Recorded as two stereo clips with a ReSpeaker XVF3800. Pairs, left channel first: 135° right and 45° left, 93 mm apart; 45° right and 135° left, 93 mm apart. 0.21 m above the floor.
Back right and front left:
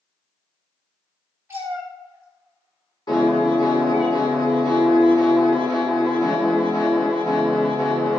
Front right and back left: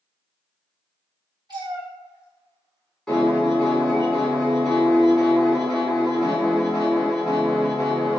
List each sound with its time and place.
1.5 s a cat meowing: 110° left, 1.4 m
3.1 s a piano: 130° right, 1.5 m